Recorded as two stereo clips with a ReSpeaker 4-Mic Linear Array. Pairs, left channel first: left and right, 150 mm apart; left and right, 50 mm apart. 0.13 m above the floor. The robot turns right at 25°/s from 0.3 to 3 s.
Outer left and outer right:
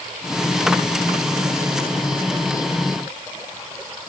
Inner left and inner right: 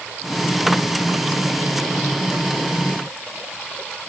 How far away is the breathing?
I don't hear breathing.